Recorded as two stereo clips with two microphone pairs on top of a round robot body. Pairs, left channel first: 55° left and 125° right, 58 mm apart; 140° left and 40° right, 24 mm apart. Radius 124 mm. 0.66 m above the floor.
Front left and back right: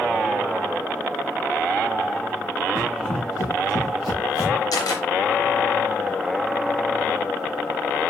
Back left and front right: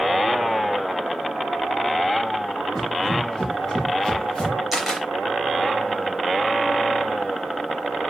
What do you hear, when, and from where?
2.8 s running footsteps: 70° left, 6 m; by 4.6 s 55° left, 5 m
4.7 s a camera shutter: 45° left, 4 m